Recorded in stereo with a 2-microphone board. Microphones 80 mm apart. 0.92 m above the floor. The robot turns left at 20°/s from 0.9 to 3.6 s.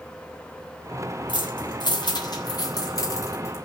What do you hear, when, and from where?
1.3 s keys jangling: 80° left, 3 m; by 3.6 s 40° left (ahead or behind), 3 m